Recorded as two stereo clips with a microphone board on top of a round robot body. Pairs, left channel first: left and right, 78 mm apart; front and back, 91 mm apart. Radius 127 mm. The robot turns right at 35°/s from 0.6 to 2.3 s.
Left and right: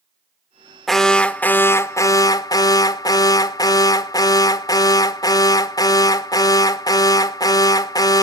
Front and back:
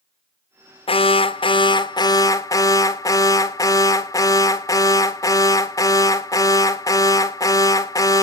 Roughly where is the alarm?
Ahead.